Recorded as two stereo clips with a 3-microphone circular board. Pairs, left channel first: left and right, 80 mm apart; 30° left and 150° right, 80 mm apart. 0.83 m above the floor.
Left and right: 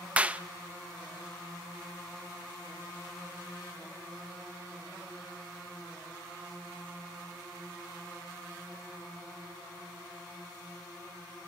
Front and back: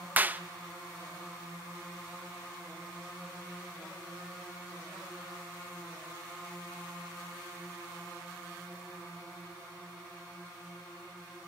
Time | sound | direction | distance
0.2 | a clap | 135° right | 0.6 m